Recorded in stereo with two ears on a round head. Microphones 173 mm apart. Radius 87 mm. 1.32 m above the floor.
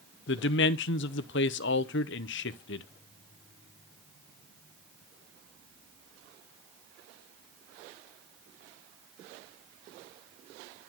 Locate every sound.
0.3 s a man speaking: 60° left (ahead or behind), 0.7 m